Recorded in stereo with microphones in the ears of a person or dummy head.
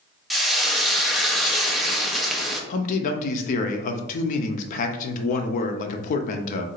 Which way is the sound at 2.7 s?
45° left (ahead or behind).